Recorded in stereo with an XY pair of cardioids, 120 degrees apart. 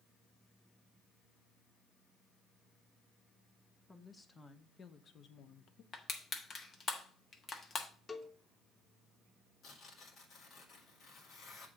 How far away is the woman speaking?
About 1.4 m.